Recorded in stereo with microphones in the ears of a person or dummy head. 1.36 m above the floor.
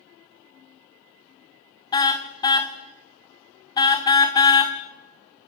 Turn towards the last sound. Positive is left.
turn(degrees=25)  # may be behind; listen again after turning